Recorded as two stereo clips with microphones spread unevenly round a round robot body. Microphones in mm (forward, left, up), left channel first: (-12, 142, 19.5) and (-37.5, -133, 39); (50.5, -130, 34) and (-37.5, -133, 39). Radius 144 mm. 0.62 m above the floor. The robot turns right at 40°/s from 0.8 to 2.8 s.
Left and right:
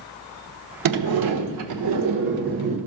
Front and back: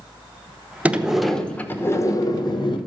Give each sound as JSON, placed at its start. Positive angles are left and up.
{"t": 0.8, "sound": "a sliding door", "azimuth_deg": -100, "distance_m": 1.1}